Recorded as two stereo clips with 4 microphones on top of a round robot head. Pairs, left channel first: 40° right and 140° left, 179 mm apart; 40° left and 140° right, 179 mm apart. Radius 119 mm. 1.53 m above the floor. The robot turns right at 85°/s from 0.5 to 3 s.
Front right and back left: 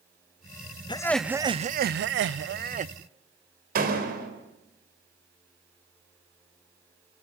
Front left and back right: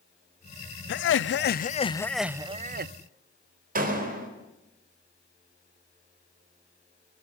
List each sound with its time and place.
0.9 s laughter: 20° left, 0.7 m; by 2.9 s 165° right, 0.7 m
3.8 s a door slam: straight behind, 4 m